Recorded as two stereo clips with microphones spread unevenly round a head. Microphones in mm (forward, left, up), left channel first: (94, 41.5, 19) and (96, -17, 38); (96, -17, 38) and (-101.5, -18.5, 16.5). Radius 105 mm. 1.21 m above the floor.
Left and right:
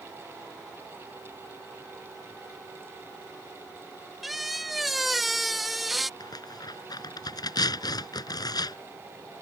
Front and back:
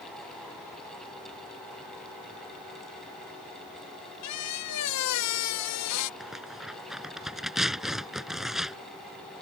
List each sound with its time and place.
4.2 s a squeak: straight ahead
6.2 s tearing paper: 90° left